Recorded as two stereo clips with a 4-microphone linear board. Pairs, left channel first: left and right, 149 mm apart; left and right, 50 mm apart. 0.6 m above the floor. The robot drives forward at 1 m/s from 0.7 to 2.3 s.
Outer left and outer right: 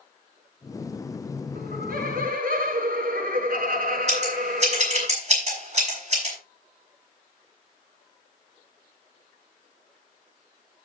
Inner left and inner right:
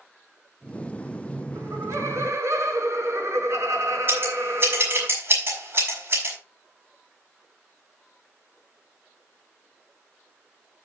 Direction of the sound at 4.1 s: 45° right (ahead or behind).